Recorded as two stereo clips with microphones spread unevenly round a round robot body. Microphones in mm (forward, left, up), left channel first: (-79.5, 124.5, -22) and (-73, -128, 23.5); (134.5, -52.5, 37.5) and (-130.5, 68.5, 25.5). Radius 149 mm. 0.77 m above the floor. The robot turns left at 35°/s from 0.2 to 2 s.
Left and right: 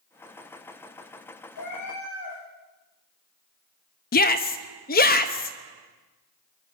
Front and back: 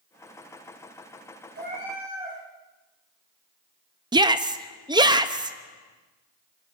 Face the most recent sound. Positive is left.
turn(degrees=90)